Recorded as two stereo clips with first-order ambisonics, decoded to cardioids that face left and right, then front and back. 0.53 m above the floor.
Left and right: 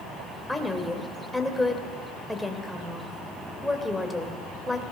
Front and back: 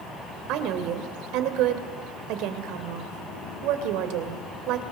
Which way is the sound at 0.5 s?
175° left.